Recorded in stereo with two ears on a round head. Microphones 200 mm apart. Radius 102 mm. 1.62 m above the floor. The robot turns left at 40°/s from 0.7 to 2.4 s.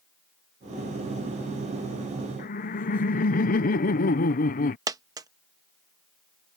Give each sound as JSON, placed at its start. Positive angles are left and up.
{"t": 2.4, "sound": "laughter", "side_deg": 35}
{"t": 4.9, "sound": "a dropped coin", "side_deg": -15}